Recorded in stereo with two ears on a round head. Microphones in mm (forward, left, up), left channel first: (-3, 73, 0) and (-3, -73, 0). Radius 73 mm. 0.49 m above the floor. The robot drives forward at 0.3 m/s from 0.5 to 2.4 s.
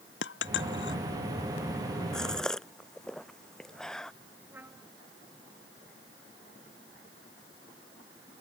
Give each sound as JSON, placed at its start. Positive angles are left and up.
{"t": 0.2, "sound": "a dropped coin", "side_deg": 85}
{"t": 2.1, "sound": "a gasp", "side_deg": 5}
{"t": 4.5, "sound": "a trumpet", "side_deg": -10}